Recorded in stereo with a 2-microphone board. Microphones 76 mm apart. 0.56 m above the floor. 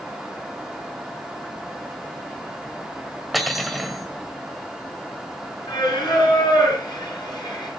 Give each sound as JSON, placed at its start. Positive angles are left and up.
{"t": 3.3, "sound": "cutlery clinking", "side_deg": 0, "distance_m": 1.6}
{"t": 5.7, "sound": "singing", "side_deg": 70, "distance_m": 7.0}